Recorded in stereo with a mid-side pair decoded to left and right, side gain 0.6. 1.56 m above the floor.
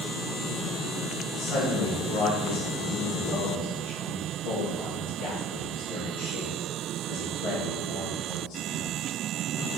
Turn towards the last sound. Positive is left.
turn(degrees=70)